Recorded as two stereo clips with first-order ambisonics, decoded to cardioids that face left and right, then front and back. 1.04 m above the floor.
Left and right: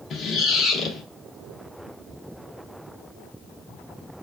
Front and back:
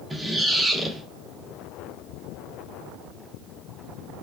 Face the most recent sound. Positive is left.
turn(degrees=100)